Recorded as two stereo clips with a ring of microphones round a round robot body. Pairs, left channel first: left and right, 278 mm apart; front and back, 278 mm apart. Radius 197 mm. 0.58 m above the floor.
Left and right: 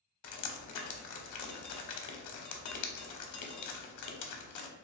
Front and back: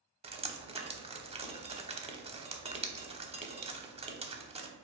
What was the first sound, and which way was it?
Dripping, 110° left.